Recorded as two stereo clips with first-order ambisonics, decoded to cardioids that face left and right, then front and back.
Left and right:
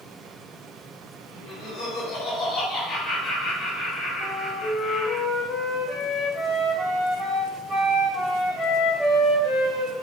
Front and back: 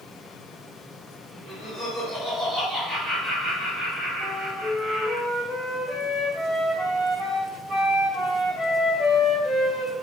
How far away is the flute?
About 1.6 m.